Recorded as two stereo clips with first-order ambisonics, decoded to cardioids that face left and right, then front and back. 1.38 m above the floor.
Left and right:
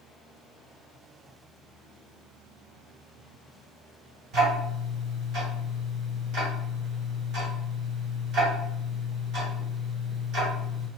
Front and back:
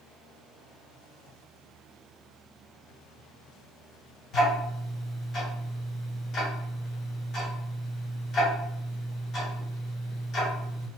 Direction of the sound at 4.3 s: 55° right.